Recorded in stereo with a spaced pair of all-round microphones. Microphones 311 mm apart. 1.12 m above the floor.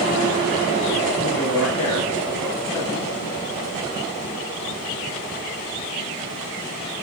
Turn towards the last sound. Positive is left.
turn(degrees=75)  # may be behind; listen again after turning